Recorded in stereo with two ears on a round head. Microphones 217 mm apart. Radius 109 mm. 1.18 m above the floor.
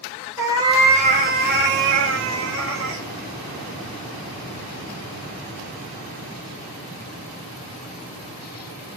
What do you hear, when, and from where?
0.4 s a cat meowing: 10° right (ahead or behind), 0.9 m; by 3.0 s 55° right (ahead or behind), 1.2 m